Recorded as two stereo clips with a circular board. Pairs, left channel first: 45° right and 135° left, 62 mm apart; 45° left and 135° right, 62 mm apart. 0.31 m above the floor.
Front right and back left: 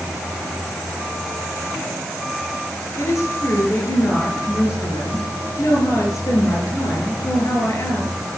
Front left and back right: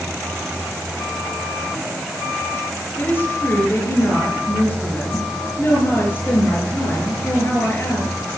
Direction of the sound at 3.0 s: 10° right.